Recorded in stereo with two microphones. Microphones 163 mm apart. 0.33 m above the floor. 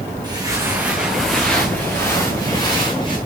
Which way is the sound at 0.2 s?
25° right (ahead or behind).